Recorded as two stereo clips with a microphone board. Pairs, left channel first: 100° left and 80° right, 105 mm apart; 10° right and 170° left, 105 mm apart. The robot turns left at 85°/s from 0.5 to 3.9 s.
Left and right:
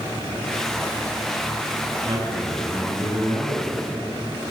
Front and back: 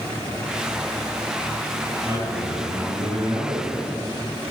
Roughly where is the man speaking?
Behind right.